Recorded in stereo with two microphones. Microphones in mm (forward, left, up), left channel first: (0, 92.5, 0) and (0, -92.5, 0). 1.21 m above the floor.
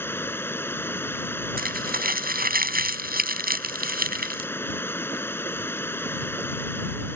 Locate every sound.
0.0 s running water: 10° left (ahead or behind)
1.6 s crumpling: 55° right (ahead or behind)